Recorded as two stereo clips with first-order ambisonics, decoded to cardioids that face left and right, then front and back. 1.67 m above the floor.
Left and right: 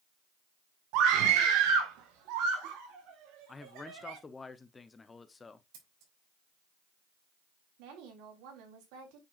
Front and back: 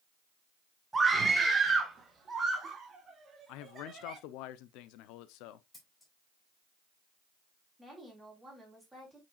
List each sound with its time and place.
0.9 s a scream: 100° right, 1.4 m; by 4.2 s 110° right, 3.5 m
3.5 s a man speaking: 15° left, 0.6 m
5.7 s scissors: 80° right, 4 m
7.8 s a woman speaking: 90° right, 3.5 m